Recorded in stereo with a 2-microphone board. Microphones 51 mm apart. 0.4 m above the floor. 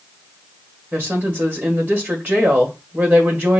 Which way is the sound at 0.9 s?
35° right (ahead or behind).